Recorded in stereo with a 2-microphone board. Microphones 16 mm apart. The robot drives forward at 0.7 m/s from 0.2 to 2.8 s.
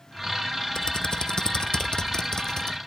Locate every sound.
0.8 s typing on a keyboard: 55° left (ahead or behind); by 2.8 s 45° left (ahead or behind)